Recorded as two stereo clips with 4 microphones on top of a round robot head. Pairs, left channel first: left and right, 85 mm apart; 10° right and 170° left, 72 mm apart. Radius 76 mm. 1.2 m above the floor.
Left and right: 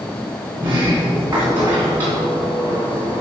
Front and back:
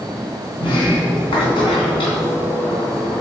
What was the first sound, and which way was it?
A sliding door, 20° right.